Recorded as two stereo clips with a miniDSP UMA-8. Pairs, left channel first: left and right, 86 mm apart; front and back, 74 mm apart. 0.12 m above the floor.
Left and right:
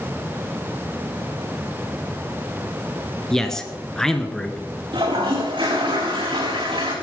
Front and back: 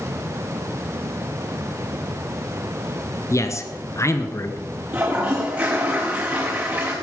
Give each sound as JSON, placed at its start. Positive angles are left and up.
{"t": 3.3, "sound": "a man speaking", "azimuth_deg": 10, "distance_m": 1.3}
{"t": 4.9, "sound": "a toilet flushing", "azimuth_deg": -115, "distance_m": 4.0}